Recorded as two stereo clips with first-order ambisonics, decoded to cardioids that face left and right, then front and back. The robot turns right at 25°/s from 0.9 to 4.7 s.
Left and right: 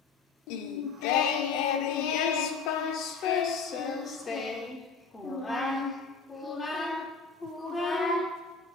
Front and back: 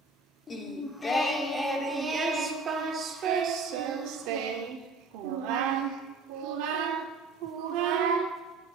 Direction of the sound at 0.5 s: 75° left.